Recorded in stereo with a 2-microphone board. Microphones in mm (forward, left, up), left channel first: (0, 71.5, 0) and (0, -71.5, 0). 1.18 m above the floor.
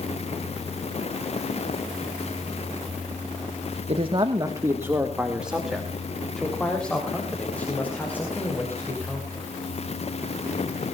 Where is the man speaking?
45° right (ahead or behind), 1.2 m; by 9.5 s 15° left (ahead or behind), 5.5 m.